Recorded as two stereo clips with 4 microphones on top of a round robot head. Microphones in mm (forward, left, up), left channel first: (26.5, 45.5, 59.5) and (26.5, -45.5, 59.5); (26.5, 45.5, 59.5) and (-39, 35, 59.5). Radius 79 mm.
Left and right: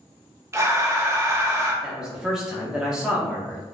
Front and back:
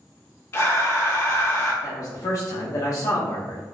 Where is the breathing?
35° right, 1.0 m.